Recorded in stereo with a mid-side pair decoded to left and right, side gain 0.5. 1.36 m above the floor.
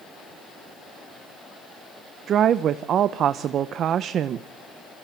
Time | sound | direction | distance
2.3 | a woman speaking | 60° right | 0.7 m